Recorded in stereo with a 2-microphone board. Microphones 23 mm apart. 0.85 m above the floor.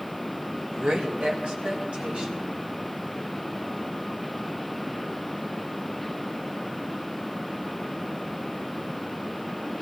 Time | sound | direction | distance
0.7 | a woman speaking | 70° right (ahead or behind) | 3 m